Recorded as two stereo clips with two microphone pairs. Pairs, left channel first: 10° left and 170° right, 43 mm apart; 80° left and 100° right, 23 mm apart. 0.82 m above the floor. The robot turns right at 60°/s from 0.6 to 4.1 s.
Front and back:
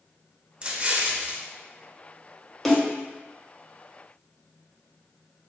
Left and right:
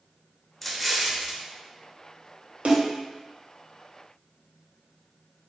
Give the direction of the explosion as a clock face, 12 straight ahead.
7 o'clock.